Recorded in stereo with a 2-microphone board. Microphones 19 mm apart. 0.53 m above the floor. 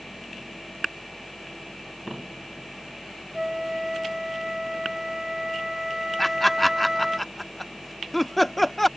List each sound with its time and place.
3.3 s a flute: 30° right (ahead or behind)
6.2 s laughter: 5° left (ahead or behind)